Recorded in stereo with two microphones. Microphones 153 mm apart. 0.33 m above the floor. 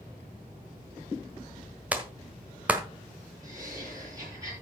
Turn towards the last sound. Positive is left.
turn(degrees=-20)  # may be behind; listen again after turning